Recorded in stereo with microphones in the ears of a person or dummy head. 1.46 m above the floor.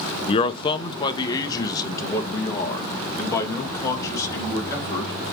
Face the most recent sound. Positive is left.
turn(degrees=15)  # may be behind; listen again after turning